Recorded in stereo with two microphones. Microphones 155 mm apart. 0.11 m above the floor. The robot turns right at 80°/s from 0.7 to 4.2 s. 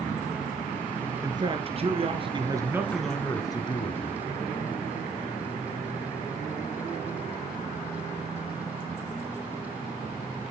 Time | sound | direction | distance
1.2 | a man speaking | 145° right | 1.3 m